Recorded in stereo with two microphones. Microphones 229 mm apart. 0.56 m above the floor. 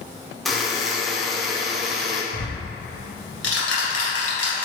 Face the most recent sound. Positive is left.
turn(degrees=70)  # may be behind; listen again after turning